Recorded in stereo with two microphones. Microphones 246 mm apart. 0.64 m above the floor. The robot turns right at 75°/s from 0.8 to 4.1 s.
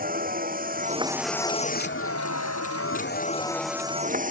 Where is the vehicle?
35° right; by 4.3 s 145° right.